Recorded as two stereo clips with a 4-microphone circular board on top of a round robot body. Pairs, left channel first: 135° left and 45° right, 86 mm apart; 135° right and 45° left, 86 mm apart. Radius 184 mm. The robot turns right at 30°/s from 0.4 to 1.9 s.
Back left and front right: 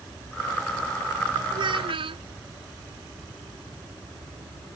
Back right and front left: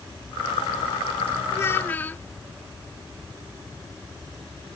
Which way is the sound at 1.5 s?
75° right.